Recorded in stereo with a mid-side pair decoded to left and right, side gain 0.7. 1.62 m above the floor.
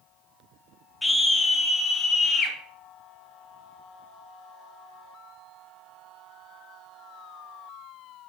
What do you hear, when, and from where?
1.0 s a scream: 10° left, 1.8 m; by 2.6 s 35° left, 2 m